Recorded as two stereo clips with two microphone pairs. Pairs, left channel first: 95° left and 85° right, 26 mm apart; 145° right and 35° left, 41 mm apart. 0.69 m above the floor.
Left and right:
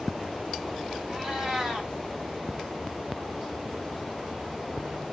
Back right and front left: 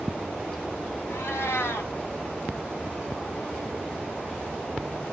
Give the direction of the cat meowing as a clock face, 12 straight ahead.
5 o'clock.